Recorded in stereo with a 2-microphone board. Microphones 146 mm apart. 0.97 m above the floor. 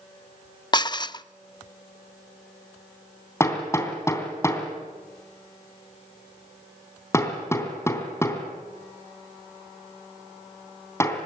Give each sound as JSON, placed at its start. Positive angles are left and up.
{"t": 0.7, "sound": "dishes clattering", "side_deg": 30, "distance_m": 0.5}
{"t": 3.4, "sound": "hammering", "side_deg": 20, "distance_m": 3.0}